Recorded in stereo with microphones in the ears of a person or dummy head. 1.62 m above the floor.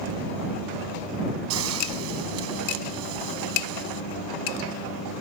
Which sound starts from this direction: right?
A hiss, at 1.5 s.